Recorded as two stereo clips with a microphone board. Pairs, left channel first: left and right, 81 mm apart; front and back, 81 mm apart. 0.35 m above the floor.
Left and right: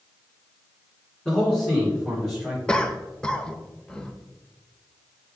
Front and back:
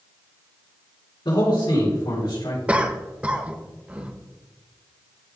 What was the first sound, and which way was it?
A man speaking, 15° left.